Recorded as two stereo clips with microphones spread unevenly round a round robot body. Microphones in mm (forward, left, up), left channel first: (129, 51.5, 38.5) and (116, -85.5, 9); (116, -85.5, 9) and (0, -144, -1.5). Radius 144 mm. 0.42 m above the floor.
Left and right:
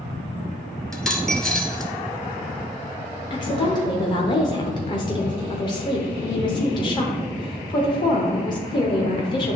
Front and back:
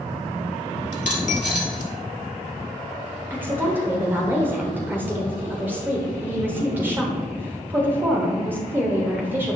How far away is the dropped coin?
About 1.4 m.